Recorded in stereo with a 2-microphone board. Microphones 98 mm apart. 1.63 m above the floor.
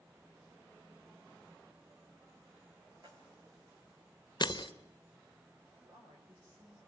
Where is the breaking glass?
50° left (ahead or behind), 1.2 m.